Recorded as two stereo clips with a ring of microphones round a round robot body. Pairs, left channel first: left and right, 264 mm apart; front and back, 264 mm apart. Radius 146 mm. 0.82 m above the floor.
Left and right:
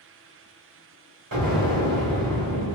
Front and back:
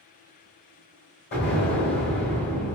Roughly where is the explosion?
Ahead right.